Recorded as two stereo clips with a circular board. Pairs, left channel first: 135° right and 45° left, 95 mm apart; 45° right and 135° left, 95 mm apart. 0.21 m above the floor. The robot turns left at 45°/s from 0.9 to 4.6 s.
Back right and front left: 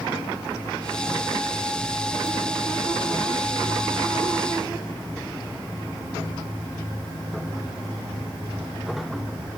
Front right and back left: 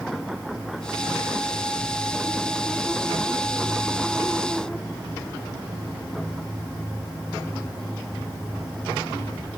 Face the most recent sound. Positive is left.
No sound to turn to.